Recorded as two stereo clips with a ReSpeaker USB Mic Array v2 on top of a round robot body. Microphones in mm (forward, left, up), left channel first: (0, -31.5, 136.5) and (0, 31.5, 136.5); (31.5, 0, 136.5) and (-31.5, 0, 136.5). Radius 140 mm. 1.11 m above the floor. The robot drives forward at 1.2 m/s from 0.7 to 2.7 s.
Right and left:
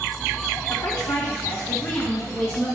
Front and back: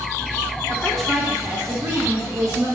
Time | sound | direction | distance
0.7 | a woman speaking | 75° right | 1.5 m